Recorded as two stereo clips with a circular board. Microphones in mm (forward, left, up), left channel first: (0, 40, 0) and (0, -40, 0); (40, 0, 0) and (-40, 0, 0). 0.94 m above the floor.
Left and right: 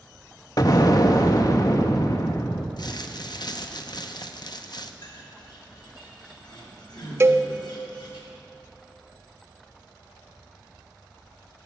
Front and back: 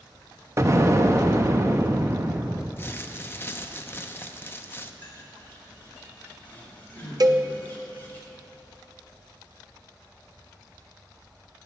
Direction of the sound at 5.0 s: 70° left.